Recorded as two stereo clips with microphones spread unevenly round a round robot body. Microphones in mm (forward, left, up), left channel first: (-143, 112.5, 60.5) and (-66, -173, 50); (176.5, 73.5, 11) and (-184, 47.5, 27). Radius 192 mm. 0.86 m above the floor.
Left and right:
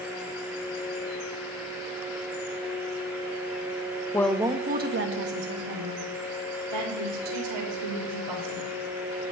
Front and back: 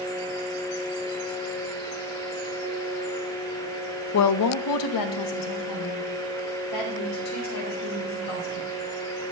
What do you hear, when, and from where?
4.1 s a woman speaking: 30° left, 0.7 m; by 8.7 s 45° right, 4 m